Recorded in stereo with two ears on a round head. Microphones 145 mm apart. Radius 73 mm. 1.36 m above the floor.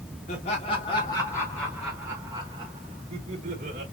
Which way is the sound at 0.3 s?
40° left (ahead or behind).